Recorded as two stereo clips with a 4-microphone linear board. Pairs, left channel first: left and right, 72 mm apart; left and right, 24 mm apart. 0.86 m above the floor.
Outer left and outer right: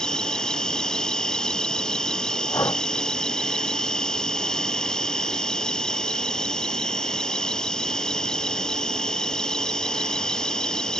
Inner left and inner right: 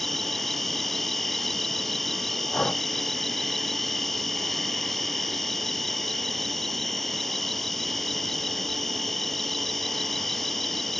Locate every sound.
0.0 s an insect: 10° left (ahead or behind)
2.5 s breathing: 45° left (ahead or behind)